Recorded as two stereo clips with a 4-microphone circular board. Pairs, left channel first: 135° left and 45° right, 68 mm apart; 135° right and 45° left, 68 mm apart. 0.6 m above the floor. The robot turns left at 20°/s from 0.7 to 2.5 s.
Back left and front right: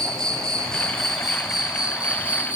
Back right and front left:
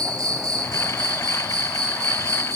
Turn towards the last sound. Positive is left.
turn(degrees=20)